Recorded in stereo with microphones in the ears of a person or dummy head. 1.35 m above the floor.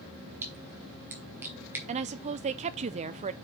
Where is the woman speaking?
35° right (ahead or behind), 0.5 m.